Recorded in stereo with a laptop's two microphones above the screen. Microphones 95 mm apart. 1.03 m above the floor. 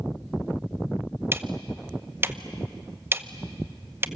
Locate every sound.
1.3 s ticking: 25° right (ahead or behind), 0.8 m